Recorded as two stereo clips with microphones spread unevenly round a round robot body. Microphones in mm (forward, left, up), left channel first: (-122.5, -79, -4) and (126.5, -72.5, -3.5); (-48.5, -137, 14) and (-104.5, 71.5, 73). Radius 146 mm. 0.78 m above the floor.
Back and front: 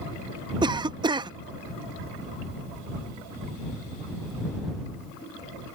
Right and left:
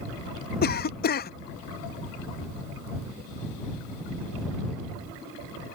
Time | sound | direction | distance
0.6 | a cough | 70° right | ?